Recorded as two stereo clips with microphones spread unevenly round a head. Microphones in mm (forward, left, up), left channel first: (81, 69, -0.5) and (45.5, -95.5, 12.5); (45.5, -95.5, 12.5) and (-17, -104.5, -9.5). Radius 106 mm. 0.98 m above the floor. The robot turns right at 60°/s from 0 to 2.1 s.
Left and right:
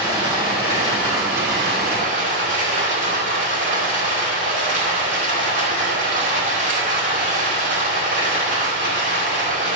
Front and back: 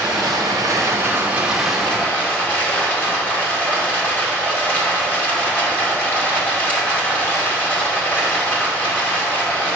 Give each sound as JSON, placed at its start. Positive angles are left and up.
{"t": 0.0, "sound": "running water", "azimuth_deg": 180, "distance_m": 2.0}